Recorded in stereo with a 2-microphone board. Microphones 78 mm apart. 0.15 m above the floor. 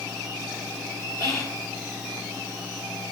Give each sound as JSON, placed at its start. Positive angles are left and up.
{"t": 1.2, "sound": "whispering", "side_deg": 45, "distance_m": 2.0}